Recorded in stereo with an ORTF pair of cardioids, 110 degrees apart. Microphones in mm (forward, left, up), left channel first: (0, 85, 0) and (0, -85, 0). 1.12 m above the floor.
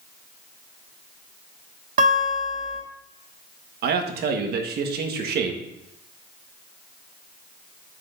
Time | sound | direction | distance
2.0 | a guitar | 55° right | 2.5 m
3.8 | a man speaking | 65° right | 1.6 m